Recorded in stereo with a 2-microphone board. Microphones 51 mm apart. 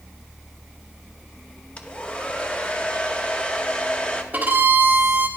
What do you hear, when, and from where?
1.8 s a hair dryer: 25° left (ahead or behind), 0.7 m
4.3 s a violin: 40° right (ahead or behind), 1.6 m